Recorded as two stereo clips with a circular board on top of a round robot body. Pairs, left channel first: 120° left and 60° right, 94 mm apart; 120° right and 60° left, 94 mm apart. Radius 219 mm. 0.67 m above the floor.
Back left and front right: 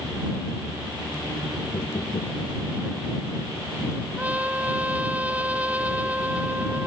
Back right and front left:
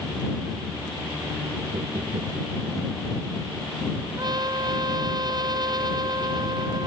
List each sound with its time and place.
1.7 s knocking: 75° left
4.2 s a trumpet: 15° left